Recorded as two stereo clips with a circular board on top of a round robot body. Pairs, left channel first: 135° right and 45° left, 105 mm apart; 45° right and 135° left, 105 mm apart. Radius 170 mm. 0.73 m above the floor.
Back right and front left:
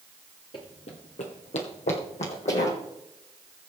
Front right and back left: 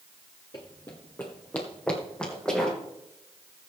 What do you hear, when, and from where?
0.5 s running footsteps: 95° right, 0.8 m; by 2.8 s 130° right, 3 m